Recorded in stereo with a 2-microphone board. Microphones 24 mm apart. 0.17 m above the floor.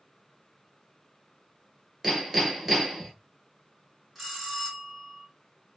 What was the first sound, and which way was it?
Hammering, 20° right (ahead or behind).